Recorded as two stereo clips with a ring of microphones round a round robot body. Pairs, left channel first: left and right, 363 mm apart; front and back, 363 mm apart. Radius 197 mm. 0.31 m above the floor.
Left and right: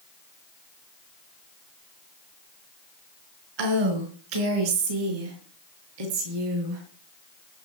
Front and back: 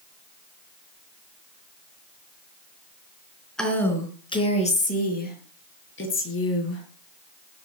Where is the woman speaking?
90° right, 4.5 m; by 6.8 s 55° right, 7.5 m.